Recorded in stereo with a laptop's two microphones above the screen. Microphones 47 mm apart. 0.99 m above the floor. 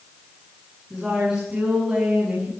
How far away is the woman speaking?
About 8.5 m.